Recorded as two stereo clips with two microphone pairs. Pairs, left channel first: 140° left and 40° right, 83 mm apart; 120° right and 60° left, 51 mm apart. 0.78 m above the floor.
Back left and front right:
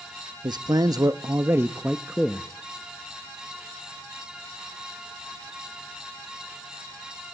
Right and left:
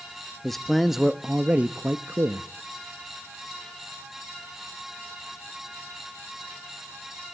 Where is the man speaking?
40° right, 1.1 m; by 2.5 s 50° left, 1.0 m.